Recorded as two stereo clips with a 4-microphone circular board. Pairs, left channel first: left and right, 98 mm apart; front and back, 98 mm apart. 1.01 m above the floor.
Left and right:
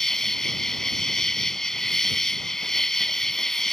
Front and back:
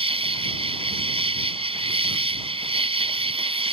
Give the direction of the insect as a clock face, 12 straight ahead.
6 o'clock.